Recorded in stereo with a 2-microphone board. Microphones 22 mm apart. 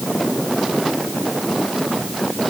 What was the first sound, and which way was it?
Only background noise.